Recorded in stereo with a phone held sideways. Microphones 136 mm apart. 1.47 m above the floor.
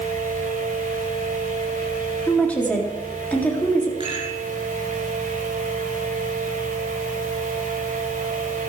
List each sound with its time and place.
0.0 s a fan: 80° right, 5.5 m
2.3 s a woman speaking: 10° left (ahead or behind), 3.5 m
4.0 s a rattle: 40° right (ahead or behind), 8 m